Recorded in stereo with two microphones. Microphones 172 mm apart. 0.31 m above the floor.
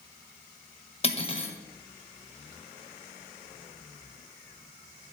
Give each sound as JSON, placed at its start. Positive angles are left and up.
{"t": 1.0, "sound": "cutlery clinking", "side_deg": 35, "distance_m": 0.8}